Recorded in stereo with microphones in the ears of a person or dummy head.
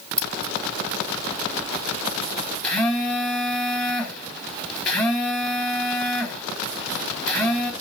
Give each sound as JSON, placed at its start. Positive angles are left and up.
{"t": 0.2, "sound": "scissors", "side_deg": 10, "distance_m": 2.5}
{"t": 2.6, "sound": "a phone buzzing", "side_deg": 10, "distance_m": 3.5}